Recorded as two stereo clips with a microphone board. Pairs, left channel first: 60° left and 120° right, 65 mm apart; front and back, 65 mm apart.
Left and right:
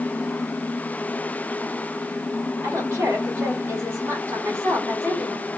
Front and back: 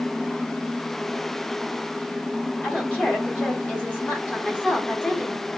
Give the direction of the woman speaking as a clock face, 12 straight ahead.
2 o'clock.